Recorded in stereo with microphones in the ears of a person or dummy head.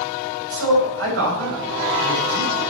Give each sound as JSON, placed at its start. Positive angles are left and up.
{"t": 0.5, "sound": "a man speaking", "side_deg": -80, "distance_m": 6.0}